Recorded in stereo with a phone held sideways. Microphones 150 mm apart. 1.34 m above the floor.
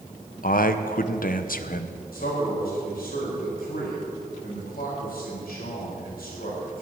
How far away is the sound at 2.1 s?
About 5 m.